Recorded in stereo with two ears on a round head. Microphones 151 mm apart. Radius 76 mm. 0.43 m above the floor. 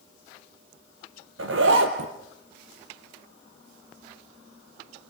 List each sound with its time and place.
1.4 s a zipper: 75° right (ahead or behind), 2.5 m